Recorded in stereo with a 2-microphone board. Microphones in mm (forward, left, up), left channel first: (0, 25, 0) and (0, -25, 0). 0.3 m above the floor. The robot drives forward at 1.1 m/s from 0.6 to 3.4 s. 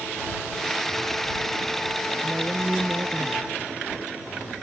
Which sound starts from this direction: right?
A woman speaking, at 2.2 s.